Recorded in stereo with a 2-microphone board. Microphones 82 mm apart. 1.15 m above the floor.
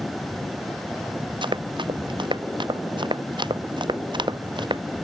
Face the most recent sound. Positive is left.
turn(degrees=-65)  # may be behind; listen again after turning